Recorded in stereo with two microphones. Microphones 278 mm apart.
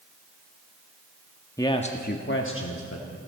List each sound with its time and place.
1.6 s a man speaking: 10° left (ahead or behind), 0.8 m; by 3.2 s 60° left (ahead or behind), 1.3 m